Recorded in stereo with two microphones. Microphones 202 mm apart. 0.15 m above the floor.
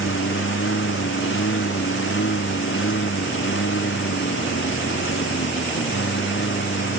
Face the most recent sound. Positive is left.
turn(degrees=75)  # may be behind; listen again after turning